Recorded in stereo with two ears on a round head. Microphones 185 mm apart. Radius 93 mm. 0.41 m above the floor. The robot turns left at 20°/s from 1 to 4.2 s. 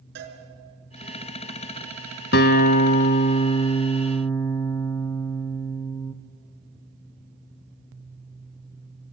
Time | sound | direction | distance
0.1 | a cowbell | 55° right (ahead or behind) | 5 m
2.3 | a guitar | 50° left | 1.0 m